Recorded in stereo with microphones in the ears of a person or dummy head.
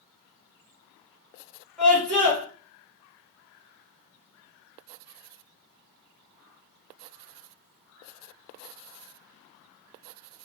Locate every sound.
1.8 s a scream: 5° left (ahead or behind), 2.5 m